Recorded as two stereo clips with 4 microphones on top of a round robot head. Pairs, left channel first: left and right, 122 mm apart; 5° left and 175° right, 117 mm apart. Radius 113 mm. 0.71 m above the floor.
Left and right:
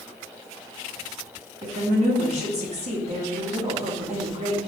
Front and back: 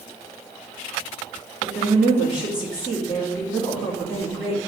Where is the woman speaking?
95° right, 1.4 m.